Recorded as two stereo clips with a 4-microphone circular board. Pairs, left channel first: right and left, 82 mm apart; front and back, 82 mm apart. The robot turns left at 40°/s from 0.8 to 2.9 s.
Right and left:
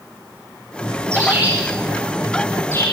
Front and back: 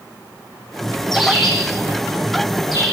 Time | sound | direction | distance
1.1 | a bird | 35° left | 8.5 m